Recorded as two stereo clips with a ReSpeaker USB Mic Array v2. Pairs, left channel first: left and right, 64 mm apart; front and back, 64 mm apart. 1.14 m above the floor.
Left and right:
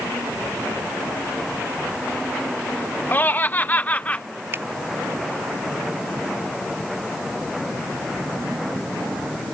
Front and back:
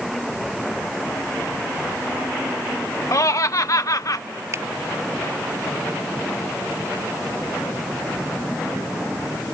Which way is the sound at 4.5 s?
140° right.